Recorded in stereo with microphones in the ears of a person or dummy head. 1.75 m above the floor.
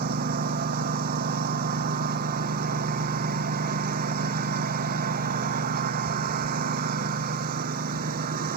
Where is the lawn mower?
50° right (ahead or behind).